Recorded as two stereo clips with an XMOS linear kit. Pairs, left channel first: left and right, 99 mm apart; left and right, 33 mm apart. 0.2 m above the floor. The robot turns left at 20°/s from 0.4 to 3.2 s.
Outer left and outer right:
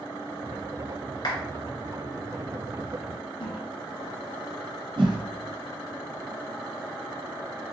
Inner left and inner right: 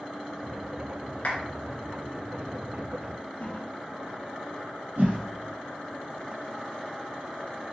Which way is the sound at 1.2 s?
50° left (ahead or behind).